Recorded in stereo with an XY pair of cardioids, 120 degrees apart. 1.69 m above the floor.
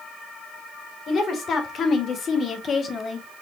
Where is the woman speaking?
45° left, 2.0 m; by 3.3 s 35° left, 0.9 m.